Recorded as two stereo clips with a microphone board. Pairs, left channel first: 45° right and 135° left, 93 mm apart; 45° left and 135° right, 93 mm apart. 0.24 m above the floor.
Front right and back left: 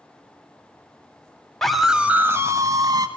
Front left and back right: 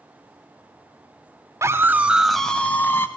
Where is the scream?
125° right, 1.0 m; by 3.1 s 105° left, 1.4 m.